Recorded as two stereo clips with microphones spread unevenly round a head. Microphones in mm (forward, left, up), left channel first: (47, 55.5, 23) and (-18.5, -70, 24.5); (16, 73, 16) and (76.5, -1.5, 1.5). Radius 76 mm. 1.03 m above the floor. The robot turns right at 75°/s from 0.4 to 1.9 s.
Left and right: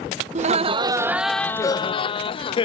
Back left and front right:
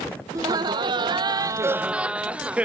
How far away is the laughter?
About 0.5 m.